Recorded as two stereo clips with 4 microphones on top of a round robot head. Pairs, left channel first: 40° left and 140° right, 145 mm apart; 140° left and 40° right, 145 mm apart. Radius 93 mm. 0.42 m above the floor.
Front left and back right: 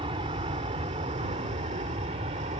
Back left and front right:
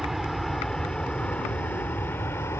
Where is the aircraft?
130° right; by 2.6 s 155° right.